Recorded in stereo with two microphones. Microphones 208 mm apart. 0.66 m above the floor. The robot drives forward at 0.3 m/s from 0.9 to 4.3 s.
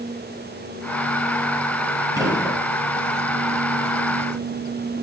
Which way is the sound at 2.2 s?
20° right (ahead or behind).